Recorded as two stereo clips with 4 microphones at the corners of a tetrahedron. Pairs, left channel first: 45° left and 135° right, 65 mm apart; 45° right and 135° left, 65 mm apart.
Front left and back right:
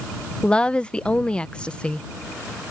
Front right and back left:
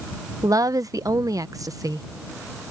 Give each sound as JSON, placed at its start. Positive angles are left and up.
{"t": 0.4, "sound": "a woman speaking", "azimuth_deg": 120}